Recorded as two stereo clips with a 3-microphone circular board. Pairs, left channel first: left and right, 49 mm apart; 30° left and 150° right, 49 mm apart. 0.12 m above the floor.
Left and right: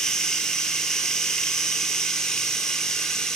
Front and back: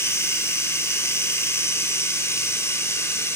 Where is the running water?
15° left, 1.6 m.